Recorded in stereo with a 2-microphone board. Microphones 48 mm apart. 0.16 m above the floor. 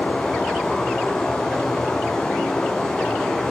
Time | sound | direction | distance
0.0 | running water | 10° left (ahead or behind) | 2.5 m